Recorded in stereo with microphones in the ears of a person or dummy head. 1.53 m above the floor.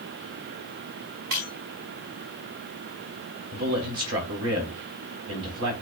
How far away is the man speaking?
About 3.5 m.